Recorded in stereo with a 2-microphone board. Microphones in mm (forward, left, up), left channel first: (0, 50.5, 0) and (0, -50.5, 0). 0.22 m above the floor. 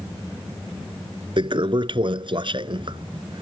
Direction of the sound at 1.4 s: 55° right (ahead or behind).